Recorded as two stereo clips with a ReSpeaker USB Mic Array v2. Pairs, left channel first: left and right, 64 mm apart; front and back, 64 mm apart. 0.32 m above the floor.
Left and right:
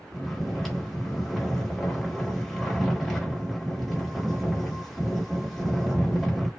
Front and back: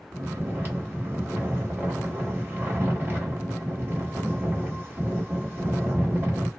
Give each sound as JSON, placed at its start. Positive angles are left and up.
{"t": 0.1, "sound": "snoring", "azimuth_deg": 180, "distance_m": 1.1}